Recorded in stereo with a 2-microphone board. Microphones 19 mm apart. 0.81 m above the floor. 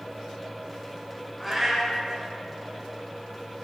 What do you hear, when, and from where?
1.4 s a cat meowing: 5° left (ahead or behind), 3.5 m